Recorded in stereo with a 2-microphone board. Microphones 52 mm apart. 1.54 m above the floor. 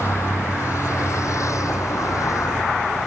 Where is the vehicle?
60° left (ahead or behind); by 3.1 s 80° left.